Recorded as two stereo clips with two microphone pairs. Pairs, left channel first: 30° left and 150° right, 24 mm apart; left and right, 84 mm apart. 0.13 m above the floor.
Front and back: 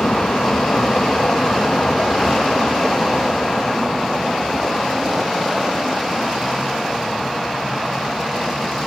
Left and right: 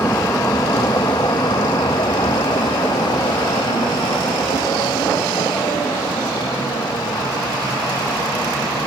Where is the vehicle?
35° left; by 8.9 s 105° left.